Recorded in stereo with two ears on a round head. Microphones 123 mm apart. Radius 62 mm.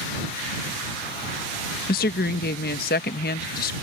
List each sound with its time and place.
1.9 s a woman speaking: 70° left (ahead or behind)